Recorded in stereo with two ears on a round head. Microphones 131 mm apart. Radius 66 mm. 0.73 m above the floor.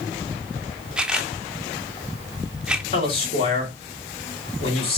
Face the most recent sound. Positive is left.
turn(degrees=40)  # may be behind; listen again after turning